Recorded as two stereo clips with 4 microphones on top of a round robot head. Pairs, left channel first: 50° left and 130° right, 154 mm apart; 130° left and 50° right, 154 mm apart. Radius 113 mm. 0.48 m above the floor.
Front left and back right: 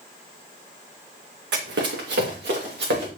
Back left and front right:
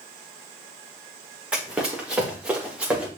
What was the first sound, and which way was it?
Running footsteps, 135° right.